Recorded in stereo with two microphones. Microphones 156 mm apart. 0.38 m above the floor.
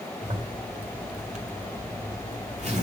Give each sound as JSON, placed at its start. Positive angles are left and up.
{"t": 0.2, "sound": "a zipper", "side_deg": -45, "distance_m": 1.9}